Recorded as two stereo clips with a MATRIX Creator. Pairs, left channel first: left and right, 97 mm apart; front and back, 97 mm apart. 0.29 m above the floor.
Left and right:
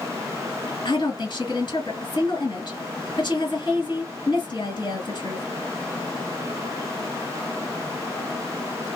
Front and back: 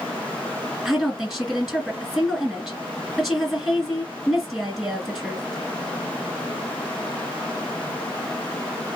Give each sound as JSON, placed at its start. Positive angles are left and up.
{"t": 0.8, "sound": "a woman speaking", "azimuth_deg": 100, "distance_m": 1.7}